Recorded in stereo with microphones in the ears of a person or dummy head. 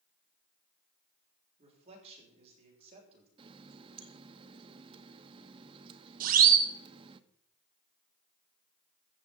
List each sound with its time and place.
1.6 s a man speaking: 35° right (ahead or behind), 6.5 m
3.4 s a running tap: 30° right (ahead or behind), 0.9 m
6.2 s a siren: 55° right (ahead or behind), 2.5 m